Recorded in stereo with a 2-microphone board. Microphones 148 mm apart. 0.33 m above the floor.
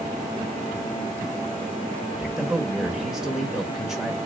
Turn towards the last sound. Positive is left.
turn(degrees=-5)  # may be behind; listen again after turning